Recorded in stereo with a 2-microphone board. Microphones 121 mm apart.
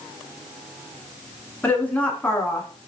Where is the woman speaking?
10° left (ahead or behind), 1.2 m.